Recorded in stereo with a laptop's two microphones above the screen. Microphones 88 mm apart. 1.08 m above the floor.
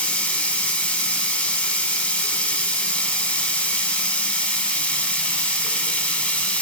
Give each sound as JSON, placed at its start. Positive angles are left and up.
{"t": 0.0, "sound": "running water", "side_deg": 15, "distance_m": 1.0}